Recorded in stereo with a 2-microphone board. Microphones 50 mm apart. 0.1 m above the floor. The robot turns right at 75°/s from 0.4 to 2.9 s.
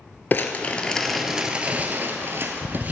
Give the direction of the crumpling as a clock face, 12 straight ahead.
8 o'clock.